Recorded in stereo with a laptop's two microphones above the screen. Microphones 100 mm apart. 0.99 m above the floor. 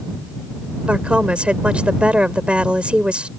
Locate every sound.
0.9 s a woman speaking: 10° right (ahead or behind)